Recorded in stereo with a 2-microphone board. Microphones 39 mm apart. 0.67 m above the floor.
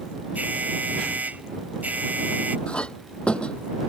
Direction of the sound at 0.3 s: 45° right (ahead or behind).